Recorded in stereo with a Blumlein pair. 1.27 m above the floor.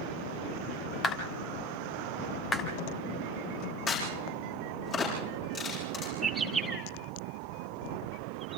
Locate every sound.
1.0 s a clap: 20° left, 3 m
3.9 s a crack: 25° left, 9 m
6.2 s a bird: 10° right, 2.5 m